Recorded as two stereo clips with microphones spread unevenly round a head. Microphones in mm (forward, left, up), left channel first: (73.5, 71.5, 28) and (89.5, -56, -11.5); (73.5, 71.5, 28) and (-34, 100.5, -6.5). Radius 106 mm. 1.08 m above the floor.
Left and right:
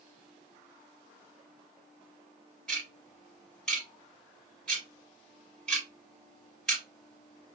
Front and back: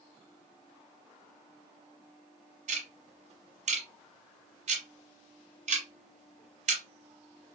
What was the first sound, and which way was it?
Ticking, 165° left.